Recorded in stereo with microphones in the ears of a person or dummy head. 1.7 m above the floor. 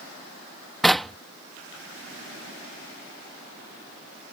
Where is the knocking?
Centre (ahead or behind).